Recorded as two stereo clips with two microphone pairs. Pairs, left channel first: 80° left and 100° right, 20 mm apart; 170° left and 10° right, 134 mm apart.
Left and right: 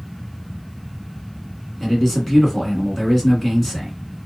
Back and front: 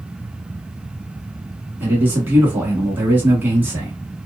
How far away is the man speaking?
About 1.1 m.